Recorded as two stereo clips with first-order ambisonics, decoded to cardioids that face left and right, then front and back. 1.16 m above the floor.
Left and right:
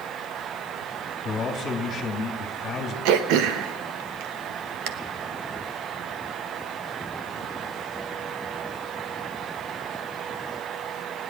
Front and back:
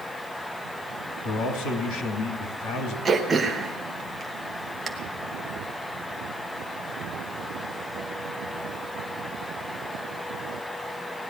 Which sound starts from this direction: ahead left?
A man speaking, at 1.2 s.